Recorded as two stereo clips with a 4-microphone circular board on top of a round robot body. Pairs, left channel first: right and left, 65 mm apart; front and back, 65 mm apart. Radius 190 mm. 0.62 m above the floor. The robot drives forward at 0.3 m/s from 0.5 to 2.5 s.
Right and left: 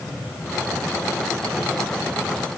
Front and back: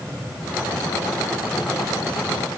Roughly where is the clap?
No clap in this recording.